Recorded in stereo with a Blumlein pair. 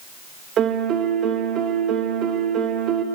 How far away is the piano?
About 1.8 m.